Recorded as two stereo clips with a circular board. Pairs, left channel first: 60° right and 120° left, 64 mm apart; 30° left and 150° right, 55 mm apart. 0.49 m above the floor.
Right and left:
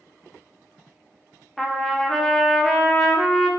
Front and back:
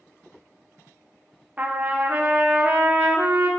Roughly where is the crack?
No crack in this recording.